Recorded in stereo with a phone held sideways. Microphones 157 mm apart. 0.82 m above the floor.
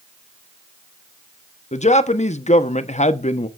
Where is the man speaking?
45° left (ahead or behind), 0.9 m.